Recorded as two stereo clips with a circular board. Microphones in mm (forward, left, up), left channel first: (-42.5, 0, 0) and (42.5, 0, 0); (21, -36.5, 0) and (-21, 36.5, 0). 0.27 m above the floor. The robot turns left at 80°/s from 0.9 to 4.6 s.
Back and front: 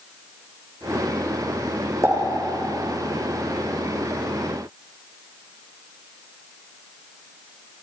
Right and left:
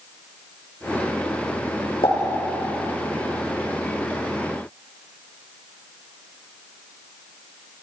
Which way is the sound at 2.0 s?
55° right.